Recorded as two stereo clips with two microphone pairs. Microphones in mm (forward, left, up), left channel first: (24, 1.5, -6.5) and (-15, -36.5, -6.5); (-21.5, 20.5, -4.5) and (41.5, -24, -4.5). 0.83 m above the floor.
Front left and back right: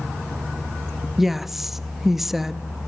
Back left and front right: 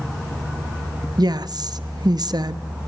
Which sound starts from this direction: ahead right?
A woman speaking, at 1.2 s.